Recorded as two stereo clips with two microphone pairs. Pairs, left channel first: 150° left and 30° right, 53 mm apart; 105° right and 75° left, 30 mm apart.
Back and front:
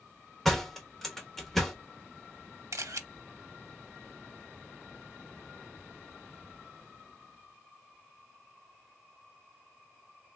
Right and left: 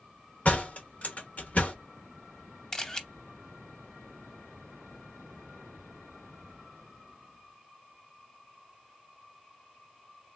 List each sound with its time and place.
0.5 s a door slam: 120° right, 1.0 m
2.7 s a camera shutter: 35° right, 0.6 m